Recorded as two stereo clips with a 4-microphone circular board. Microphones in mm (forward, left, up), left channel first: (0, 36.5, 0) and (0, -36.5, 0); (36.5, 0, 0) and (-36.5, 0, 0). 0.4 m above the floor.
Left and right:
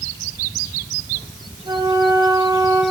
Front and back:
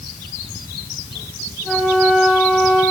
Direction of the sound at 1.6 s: 90° right.